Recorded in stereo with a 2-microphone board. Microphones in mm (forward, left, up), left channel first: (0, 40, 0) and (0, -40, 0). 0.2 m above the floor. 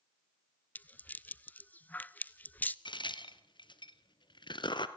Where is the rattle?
25° left (ahead or behind), 0.6 m.